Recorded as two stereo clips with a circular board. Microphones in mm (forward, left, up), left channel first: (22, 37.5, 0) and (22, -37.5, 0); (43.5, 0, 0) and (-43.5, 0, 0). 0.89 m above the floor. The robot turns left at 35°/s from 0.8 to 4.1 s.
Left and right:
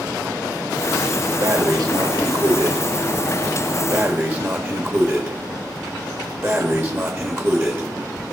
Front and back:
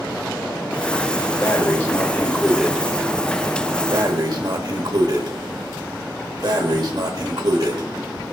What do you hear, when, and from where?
1.4 s breathing: 50° right, 1.3 m; by 7.9 s 140° right, 1.3 m